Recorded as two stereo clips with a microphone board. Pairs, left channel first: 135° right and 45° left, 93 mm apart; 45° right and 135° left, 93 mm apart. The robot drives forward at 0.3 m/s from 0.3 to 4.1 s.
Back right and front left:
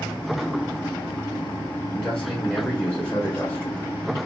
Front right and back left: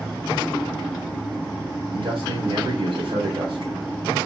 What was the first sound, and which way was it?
A man speaking, 140° left.